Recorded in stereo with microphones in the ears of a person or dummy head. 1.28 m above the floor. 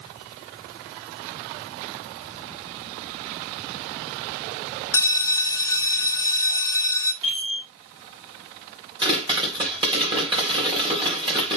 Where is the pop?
30° right (ahead or behind), 3.5 m.